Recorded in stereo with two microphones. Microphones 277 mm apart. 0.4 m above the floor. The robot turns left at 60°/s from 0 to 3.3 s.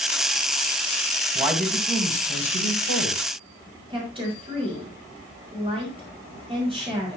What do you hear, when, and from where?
1.4 s a man speaking: 165° right, 2.5 m; by 3.2 s 85° left, 2.5 m
3.9 s a woman speaking: 20° right (ahead or behind), 5 m